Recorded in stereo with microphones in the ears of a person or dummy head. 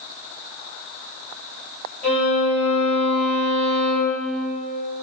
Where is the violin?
15° left (ahead or behind), 1.2 m.